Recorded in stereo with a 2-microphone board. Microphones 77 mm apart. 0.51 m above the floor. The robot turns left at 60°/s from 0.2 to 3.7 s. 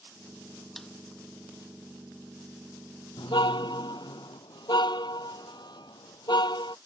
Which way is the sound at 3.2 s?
80° left.